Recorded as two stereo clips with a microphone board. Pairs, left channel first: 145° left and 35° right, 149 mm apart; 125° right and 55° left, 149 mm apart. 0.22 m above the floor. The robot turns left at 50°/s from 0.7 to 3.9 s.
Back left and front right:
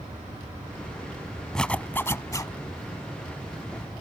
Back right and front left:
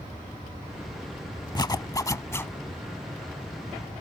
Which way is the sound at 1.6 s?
135° right.